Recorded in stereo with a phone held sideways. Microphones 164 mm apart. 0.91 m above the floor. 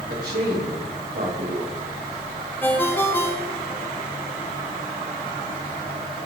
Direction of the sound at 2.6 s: 10° left (ahead or behind).